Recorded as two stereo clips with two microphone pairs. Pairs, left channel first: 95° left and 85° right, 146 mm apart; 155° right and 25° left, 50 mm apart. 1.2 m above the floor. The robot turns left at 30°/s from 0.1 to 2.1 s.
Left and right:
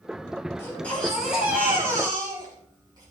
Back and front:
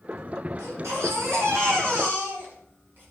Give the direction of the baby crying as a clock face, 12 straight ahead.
11 o'clock.